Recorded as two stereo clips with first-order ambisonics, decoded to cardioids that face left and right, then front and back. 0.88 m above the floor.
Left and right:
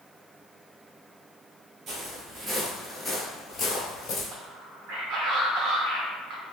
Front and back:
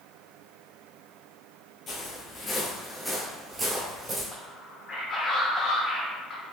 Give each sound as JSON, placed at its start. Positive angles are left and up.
{"t": 1.9, "sound": "footsteps", "azimuth_deg": -45, "distance_m": 1.1}
{"t": 4.3, "sound": "a man speaking", "azimuth_deg": -55, "distance_m": 0.8}